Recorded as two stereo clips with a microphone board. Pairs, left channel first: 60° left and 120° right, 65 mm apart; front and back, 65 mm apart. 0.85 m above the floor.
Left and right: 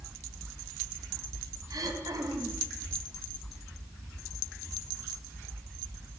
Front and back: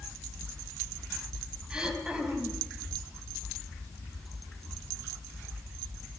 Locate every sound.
1.7 s throat clearing: 105° right, 3.5 m